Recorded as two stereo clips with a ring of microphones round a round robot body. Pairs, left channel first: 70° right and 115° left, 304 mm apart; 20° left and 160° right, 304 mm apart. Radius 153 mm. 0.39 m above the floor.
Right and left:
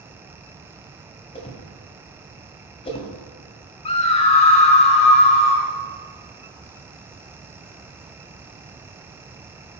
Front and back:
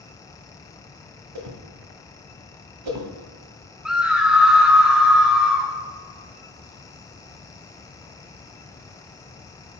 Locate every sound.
1.4 s a whoosh: 140° right, 2.0 m
3.9 s a scream: 75° right, 1.0 m